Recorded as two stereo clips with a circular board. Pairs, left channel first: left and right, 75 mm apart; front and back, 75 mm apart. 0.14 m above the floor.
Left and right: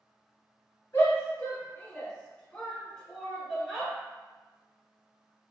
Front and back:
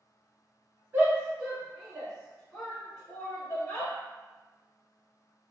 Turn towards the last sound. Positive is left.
turn(degrees=-10)